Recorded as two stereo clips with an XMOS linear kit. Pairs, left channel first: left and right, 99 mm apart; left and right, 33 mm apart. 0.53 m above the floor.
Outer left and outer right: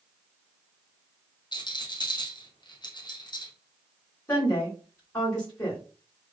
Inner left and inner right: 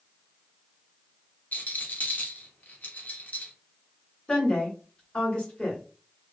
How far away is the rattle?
About 0.6 m.